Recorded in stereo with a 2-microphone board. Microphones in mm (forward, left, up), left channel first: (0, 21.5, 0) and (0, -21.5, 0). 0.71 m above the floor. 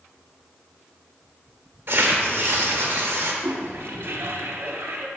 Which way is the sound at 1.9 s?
60° right (ahead or behind).